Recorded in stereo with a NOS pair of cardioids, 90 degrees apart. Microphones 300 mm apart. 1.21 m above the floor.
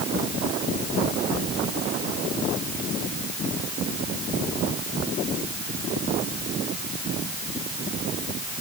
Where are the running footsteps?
I don't hear running footsteps.